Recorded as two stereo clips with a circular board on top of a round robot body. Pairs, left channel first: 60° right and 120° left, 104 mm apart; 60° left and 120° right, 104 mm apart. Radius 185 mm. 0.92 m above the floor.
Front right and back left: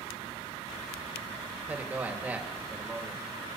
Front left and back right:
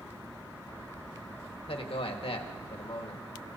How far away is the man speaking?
About 1.6 m.